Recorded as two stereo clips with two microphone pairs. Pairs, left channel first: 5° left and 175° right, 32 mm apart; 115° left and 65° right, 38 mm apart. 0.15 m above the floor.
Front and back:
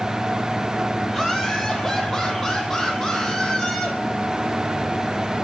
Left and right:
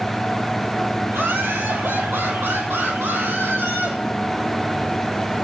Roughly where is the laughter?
Right.